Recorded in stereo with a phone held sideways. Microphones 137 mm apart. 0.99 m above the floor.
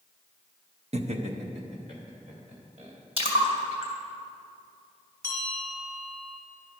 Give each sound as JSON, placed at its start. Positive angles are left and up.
{"t": 0.9, "sound": "laughter", "side_deg": -50, "distance_m": 0.7}
{"t": 3.2, "sound": "a splash", "side_deg": -45, "distance_m": 2.5}
{"t": 5.2, "sound": "a bell", "side_deg": -35, "distance_m": 2.5}